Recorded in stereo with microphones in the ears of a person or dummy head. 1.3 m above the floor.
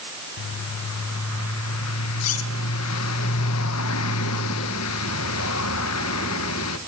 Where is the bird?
80° left, 1.3 m.